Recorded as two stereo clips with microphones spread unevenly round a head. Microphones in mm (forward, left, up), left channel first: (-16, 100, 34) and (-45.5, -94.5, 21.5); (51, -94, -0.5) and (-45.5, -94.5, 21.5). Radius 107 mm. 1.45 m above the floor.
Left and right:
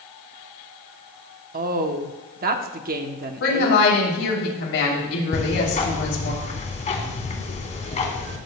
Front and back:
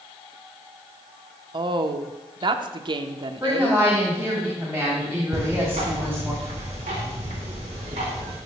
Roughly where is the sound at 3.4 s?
Left.